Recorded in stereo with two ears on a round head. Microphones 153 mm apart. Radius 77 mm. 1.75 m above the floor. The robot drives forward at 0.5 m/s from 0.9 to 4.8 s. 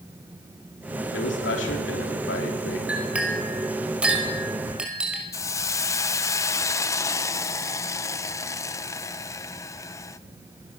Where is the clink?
5° right (ahead or behind), 5 m.